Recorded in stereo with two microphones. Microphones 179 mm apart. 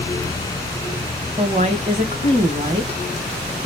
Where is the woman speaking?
40° right (ahead or behind), 1.2 m.